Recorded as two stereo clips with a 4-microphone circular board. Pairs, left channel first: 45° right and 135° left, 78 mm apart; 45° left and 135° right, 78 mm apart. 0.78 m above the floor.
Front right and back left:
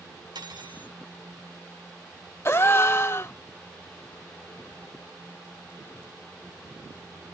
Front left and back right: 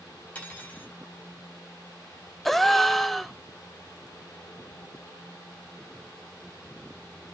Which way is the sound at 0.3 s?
120° left.